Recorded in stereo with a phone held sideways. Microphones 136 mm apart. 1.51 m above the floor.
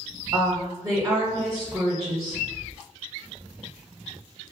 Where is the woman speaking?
30° right (ahead or behind), 0.7 m.